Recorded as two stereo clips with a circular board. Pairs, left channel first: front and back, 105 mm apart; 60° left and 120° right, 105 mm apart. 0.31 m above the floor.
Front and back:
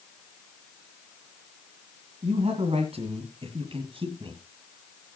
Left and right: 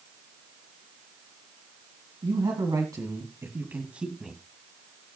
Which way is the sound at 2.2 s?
160° right.